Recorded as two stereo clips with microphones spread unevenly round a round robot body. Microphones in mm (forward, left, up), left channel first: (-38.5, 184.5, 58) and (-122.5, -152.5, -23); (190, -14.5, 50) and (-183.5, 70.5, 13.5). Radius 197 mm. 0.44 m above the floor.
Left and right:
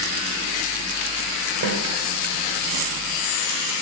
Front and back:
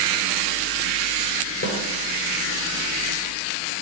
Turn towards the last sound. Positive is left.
turn(degrees=-70)